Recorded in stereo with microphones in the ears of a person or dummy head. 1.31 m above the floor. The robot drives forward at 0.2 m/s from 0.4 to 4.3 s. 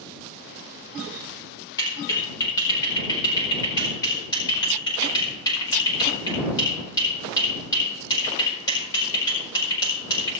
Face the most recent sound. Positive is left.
turn(degrees=20)  # may be behind; listen again after turning